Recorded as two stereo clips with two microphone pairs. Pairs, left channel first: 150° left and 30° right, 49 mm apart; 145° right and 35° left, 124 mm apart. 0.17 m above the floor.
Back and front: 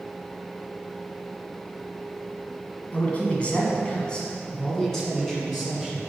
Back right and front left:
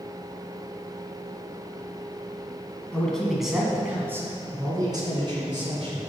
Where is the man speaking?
140° left, 1.8 m; by 6.1 s 60° left, 2.5 m.